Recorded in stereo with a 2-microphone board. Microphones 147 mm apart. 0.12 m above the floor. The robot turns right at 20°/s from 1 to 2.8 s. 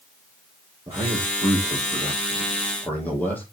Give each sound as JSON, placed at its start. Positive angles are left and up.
{"t": 0.9, "sound": "a man speaking", "azimuth_deg": -25, "distance_m": 3.5}